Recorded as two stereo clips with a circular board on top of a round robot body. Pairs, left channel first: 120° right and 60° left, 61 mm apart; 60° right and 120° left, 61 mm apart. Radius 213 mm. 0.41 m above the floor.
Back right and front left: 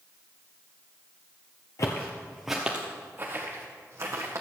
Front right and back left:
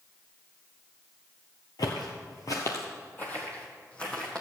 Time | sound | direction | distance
1.8 | footsteps | 80° right | 0.7 m